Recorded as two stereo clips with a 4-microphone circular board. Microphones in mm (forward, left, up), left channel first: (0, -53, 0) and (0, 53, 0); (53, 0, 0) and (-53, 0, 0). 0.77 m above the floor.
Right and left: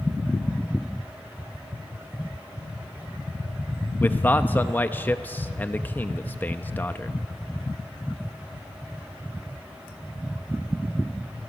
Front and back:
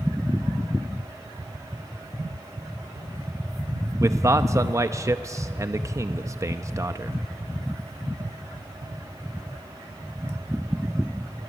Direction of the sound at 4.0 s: 150° right.